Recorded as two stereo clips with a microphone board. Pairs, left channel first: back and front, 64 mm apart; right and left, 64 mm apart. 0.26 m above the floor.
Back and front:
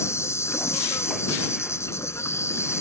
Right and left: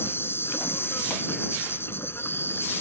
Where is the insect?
140° right.